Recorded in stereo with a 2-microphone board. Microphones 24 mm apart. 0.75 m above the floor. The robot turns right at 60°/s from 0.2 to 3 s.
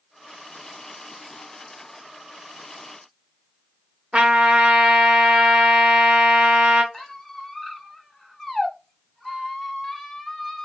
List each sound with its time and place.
4.1 s a trumpet: 45° right (ahead or behind), 0.7 m
6.9 s a squeak: 10° left (ahead or behind), 0.5 m